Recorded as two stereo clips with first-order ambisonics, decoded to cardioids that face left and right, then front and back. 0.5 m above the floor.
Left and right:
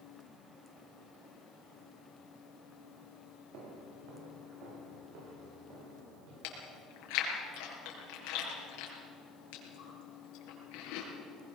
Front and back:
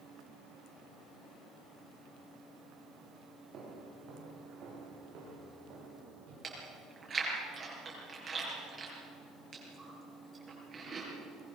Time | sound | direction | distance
3.5 | footsteps | 120° right | 7 m
6.4 | chewing | 110° left | 5.5 m